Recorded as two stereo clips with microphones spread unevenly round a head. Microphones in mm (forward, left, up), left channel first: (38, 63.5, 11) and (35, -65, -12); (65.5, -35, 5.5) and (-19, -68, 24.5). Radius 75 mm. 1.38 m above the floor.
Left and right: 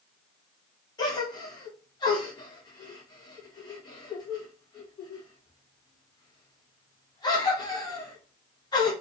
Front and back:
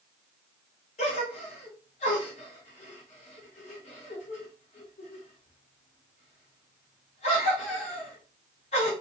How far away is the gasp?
About 0.9 m.